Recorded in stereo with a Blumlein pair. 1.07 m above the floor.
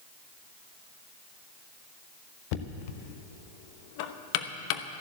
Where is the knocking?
45° left, 0.9 m.